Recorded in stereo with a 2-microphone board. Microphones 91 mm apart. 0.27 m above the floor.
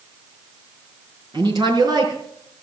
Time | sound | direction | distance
1.3 | a woman speaking | 50° right (ahead or behind) | 4 m